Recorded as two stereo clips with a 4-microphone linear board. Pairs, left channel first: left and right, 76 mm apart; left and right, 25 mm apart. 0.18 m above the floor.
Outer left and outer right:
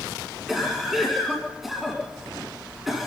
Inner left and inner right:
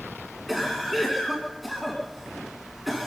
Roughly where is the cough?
Centre.